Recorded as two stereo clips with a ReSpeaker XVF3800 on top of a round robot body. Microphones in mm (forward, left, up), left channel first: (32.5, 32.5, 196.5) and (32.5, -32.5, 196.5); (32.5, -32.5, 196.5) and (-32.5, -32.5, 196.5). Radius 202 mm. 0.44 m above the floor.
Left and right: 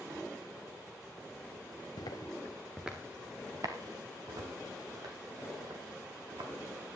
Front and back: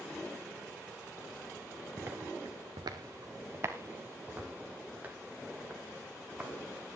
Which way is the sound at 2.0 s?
115° left.